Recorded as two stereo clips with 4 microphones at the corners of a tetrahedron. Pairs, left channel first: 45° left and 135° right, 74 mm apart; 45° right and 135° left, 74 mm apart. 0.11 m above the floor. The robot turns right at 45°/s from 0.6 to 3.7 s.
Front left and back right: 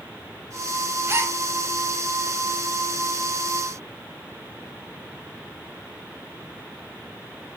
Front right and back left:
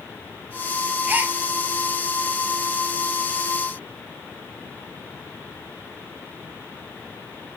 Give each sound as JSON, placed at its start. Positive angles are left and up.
{"t": 1.1, "sound": "a gasp", "azimuth_deg": -175, "distance_m": 0.6}